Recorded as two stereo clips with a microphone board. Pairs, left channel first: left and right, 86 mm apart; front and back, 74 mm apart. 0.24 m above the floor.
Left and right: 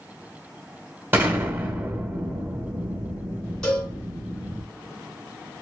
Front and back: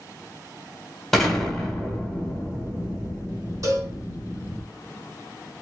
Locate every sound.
1.1 s an explosion: 85° right, 1.3 m
3.6 s a cowbell: 165° left, 1.7 m